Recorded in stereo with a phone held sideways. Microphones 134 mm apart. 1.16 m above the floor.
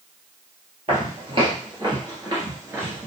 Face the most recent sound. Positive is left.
turn(degrees=-15)  # may be behind; listen again after turning